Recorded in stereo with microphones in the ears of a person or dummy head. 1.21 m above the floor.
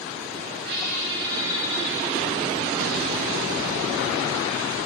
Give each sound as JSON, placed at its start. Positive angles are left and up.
{"t": 0.7, "sound": "a squeak", "side_deg": -65, "distance_m": 3.0}